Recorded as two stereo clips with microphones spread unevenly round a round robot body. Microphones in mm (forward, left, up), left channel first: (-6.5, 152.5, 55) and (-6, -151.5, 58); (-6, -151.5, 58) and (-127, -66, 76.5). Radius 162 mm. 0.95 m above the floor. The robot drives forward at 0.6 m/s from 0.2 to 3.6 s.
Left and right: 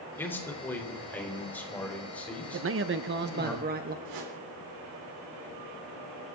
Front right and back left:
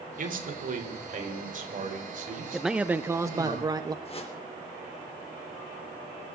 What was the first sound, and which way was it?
A man speaking, 175° left.